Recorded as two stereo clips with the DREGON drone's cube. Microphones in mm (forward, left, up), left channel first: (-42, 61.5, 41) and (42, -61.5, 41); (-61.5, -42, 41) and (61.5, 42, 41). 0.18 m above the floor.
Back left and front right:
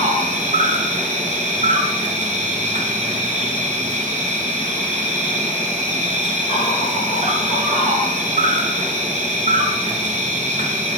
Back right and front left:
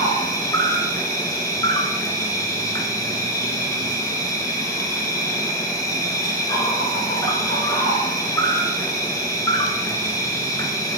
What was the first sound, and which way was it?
An insect, 80° right.